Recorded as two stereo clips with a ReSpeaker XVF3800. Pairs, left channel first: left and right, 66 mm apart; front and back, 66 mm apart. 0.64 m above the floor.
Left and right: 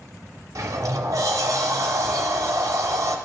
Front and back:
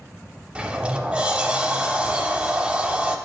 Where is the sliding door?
110° right, 0.5 m.